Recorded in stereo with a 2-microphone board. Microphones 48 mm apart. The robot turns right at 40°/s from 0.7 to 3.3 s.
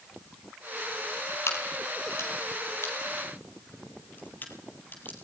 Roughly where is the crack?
Left.